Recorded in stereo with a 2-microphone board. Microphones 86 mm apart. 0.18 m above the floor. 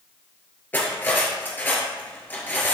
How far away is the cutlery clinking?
About 1.8 m.